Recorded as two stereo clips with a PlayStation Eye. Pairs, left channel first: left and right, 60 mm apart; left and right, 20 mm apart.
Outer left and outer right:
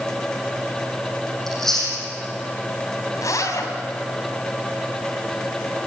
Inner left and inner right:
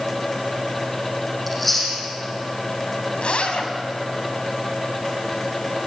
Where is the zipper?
75° left (ahead or behind), 3.5 m.